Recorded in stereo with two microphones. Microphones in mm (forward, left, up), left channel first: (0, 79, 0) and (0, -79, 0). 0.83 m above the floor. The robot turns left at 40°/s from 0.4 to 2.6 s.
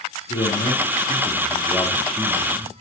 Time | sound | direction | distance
0.3 | a man speaking | 75° left | 1.9 m